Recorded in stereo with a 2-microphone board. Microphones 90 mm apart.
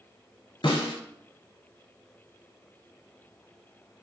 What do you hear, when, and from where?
0.6 s a snare drum: 70° left (ahead or behind), 0.6 m